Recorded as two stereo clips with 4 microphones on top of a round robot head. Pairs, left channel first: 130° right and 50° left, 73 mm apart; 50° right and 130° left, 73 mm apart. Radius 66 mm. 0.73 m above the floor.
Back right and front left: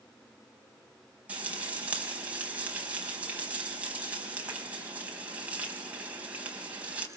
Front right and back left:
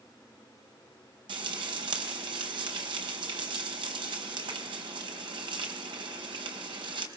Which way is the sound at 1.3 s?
120° left.